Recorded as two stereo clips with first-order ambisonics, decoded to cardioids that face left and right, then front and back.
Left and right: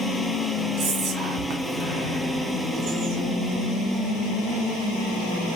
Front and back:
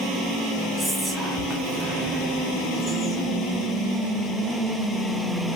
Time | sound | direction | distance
0.8 | whispering | 110° right | 1.3 m